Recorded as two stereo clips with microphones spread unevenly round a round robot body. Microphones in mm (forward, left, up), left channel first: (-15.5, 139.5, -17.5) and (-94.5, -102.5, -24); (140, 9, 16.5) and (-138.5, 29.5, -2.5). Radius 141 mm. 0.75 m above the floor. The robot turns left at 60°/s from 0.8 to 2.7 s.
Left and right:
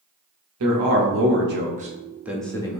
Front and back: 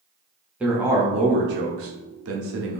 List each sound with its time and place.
0.6 s a man speaking: 105° right, 0.8 m; by 2.8 s 145° left, 0.8 m